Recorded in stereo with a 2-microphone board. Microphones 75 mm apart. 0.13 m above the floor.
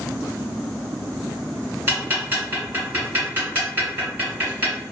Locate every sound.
1.9 s ticking: 25° right (ahead or behind), 1.4 m